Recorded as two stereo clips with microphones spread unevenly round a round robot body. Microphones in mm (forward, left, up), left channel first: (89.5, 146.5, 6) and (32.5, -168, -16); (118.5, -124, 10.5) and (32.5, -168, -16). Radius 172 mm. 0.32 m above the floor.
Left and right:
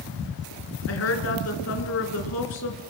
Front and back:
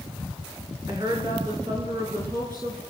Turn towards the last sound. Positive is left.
turn(degrees=130)